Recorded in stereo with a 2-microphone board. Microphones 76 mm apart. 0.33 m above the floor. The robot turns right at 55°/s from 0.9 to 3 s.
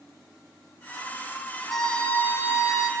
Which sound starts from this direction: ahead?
A violin, at 1.7 s.